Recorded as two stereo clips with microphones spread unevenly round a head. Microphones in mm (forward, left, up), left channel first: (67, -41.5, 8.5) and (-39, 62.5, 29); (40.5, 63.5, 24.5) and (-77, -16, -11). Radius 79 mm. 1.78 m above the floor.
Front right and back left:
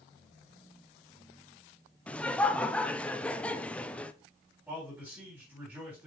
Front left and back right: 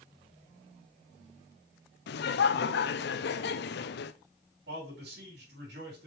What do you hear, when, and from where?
2.1 s laughter: 40° left, 0.6 m
4.7 s a man speaking: 145° right, 4 m